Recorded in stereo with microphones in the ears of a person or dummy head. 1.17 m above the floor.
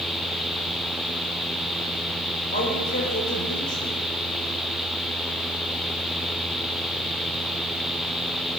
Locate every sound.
2.5 s a man speaking: 45° left (ahead or behind), 4.5 m